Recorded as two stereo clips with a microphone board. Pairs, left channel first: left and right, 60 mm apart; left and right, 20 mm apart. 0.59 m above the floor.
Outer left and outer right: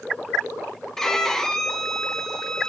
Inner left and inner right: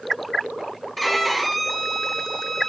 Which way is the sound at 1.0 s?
5° left (ahead or behind).